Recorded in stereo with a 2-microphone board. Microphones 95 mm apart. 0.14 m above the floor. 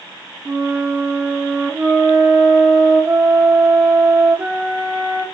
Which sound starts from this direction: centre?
A flute, at 0.5 s.